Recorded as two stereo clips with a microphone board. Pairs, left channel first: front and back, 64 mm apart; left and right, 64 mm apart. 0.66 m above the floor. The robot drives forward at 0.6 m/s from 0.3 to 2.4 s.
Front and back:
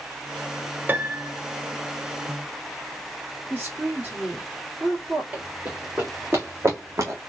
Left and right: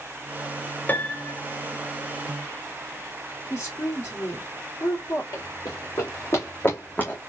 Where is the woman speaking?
115° left, 2 m.